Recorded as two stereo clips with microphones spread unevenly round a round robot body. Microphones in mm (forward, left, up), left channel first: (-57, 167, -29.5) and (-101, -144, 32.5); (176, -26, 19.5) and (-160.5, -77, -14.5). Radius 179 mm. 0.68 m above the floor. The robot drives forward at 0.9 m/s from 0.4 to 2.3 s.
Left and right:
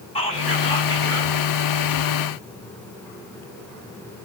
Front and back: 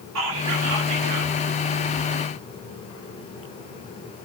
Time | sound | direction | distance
0.1 | whispering | 150° left | 2.5 m